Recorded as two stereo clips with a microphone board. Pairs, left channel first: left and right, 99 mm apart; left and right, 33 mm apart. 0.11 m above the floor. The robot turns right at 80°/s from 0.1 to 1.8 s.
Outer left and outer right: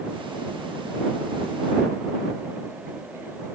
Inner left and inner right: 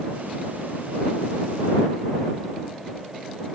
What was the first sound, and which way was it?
Only background noise.